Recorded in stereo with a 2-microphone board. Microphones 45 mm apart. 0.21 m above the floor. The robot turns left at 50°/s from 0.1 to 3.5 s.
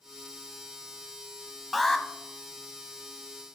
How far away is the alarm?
About 0.7 m.